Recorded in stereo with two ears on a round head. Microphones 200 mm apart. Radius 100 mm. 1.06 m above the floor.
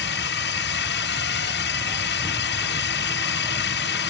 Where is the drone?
50° left (ahead or behind).